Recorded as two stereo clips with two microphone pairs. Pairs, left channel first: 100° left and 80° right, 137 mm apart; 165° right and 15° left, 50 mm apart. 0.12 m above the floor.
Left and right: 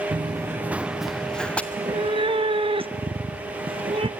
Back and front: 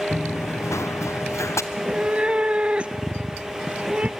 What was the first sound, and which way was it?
Running footsteps, 130° right.